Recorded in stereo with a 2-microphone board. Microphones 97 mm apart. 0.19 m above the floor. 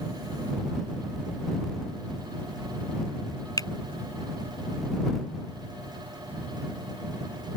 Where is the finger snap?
40° left (ahead or behind).